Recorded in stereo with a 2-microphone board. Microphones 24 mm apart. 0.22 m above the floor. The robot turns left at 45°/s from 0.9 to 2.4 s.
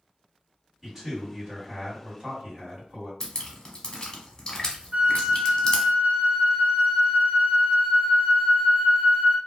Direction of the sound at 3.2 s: 30° left (ahead or behind).